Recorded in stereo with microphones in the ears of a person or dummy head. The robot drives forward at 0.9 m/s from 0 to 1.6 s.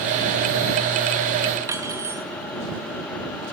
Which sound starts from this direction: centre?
Cutlery clinking, at 1.7 s.